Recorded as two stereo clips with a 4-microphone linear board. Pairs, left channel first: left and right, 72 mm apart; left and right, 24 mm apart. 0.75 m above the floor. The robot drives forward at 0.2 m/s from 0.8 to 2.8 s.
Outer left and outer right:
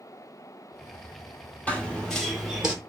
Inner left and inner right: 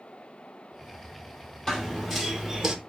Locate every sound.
1.7 s running footsteps: 20° left (ahead or behind), 1.0 m; by 2.8 s 15° right (ahead or behind), 0.9 m